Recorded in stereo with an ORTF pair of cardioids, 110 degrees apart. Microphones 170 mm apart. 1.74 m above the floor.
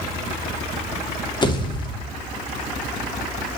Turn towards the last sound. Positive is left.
turn(degrees=25)